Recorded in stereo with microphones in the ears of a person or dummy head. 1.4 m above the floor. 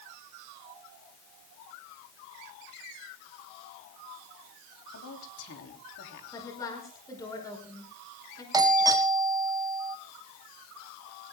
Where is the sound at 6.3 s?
20° left (ahead or behind), 5 m.